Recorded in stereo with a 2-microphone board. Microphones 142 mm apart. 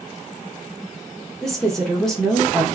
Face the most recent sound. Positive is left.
turn(degrees=5)  # may be behind; listen again after turning